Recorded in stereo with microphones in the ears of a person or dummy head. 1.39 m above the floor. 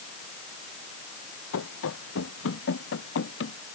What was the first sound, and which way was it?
Running footsteps, 75° left (ahead or behind).